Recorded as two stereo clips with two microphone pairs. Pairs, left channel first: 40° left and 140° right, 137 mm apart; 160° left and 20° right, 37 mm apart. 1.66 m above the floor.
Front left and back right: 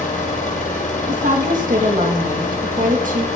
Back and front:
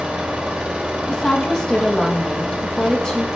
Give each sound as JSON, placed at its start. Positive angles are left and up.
{"t": 0.0, "sound": "an engine running", "azimuth_deg": 40, "distance_m": 3.0}
{"t": 1.1, "sound": "a woman speaking", "azimuth_deg": -130, "distance_m": 2.5}